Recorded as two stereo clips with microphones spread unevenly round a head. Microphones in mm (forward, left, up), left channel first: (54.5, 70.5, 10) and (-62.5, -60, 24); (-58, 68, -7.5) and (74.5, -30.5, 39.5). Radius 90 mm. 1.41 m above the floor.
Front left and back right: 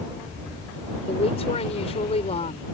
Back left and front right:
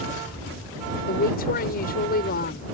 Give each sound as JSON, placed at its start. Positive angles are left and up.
{"t": 1.1, "sound": "a woman speaking", "azimuth_deg": 105}